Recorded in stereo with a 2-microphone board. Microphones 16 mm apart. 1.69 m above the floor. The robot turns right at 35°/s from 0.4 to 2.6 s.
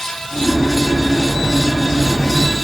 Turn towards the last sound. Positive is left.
No sound to turn to.